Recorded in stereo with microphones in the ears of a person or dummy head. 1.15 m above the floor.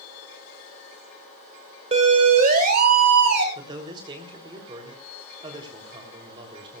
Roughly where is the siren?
Right.